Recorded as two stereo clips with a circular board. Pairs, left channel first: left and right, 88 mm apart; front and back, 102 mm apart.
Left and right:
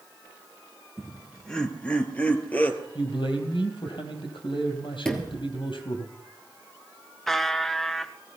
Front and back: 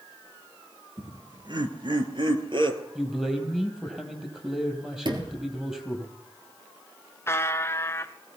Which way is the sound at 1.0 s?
Straight behind.